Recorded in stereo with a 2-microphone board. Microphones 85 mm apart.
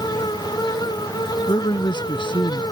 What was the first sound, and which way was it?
A man speaking, 65° left (ahead or behind).